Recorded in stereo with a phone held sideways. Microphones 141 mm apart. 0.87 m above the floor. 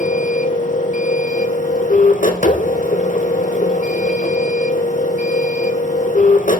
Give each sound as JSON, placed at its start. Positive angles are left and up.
{"t": 0.0, "sound": "a machine running", "side_deg": 65, "distance_m": 1.0}